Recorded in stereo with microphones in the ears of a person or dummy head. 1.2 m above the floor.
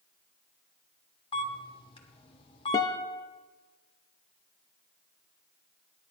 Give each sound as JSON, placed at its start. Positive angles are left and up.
{"t": 1.3, "sound": "a camera shutter", "side_deg": 25, "distance_m": 1.3}
{"t": 2.7, "sound": "a guitar", "side_deg": 20, "distance_m": 0.5}